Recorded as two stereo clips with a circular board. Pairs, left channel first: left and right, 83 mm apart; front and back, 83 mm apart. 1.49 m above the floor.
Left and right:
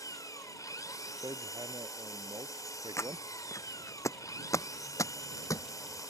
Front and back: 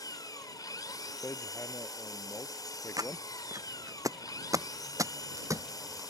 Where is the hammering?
55° right.